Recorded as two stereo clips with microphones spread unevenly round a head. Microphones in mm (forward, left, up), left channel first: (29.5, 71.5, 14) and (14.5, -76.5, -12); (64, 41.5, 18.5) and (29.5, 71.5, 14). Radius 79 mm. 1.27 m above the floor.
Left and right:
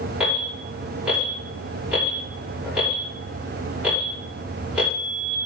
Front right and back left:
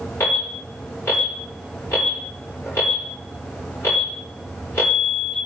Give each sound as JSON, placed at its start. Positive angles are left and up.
{"t": 0.2, "sound": "an alarm", "azimuth_deg": -15, "distance_m": 5.5}